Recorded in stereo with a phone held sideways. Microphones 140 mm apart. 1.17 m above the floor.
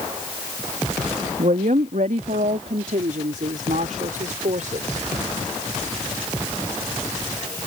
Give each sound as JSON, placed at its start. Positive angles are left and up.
{"t": 1.4, "sound": "a woman speaking", "side_deg": -65}